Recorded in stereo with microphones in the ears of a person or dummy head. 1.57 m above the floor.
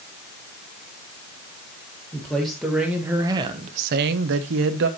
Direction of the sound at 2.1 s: Centre (ahead or behind).